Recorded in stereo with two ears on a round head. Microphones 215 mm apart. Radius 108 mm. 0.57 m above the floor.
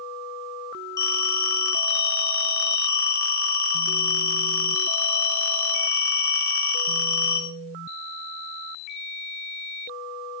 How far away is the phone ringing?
About 4 m.